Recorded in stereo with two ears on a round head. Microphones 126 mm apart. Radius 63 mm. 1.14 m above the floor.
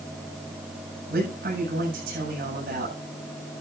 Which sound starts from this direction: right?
A man speaking, at 1.1 s.